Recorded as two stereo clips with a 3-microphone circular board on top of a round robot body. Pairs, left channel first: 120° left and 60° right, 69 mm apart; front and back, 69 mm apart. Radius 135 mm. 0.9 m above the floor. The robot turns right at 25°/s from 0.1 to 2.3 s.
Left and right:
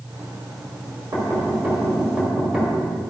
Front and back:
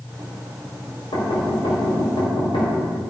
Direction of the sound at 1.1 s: 10° right.